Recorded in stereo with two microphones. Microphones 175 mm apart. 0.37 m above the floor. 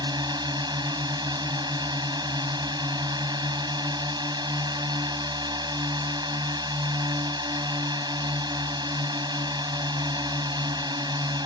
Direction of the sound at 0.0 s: 25° right (ahead or behind).